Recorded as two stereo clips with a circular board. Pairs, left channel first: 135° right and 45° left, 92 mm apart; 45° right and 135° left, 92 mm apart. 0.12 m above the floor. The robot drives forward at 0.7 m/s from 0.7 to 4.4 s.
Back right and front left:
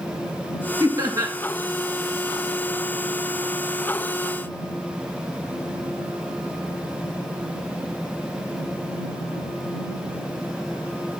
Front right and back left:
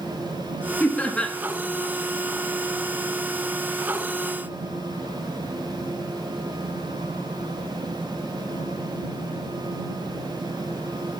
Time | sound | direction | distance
0.8 | laughter | 20° left | 1.7 m